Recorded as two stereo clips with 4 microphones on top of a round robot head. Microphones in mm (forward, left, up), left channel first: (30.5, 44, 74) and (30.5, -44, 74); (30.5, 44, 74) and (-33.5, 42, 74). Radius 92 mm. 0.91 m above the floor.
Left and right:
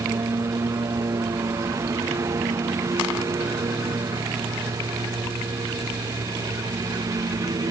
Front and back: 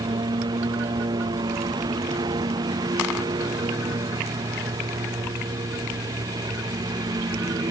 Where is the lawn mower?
155° right; by 7.7 s 150° right.